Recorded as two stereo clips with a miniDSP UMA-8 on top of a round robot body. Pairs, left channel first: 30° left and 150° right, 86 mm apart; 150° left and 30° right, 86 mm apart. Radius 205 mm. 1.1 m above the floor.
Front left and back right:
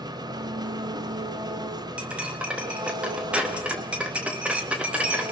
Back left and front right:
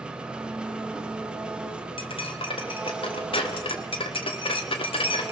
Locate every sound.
0.0 s an engine running: 110° right, 1.2 m
2.0 s cutlery clinking: 135° left, 1.0 m